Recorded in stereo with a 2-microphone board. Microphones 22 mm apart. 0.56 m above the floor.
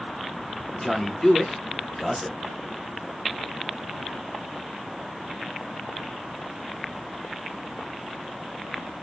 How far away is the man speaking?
About 1.0 m.